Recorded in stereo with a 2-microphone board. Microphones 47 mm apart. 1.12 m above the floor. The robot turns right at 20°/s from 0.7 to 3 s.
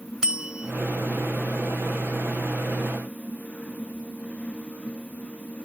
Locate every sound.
0.2 s a bell: 15° right (ahead or behind)